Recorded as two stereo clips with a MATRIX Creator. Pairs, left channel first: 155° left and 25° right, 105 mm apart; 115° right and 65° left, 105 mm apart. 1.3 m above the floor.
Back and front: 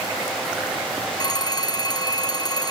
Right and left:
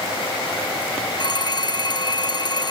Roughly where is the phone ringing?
Behind right.